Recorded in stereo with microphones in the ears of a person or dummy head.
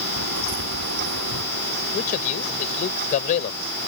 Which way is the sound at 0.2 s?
60° right (ahead or behind).